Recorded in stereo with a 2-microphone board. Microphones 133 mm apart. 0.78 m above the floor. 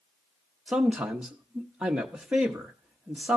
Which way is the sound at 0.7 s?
5° right (ahead or behind).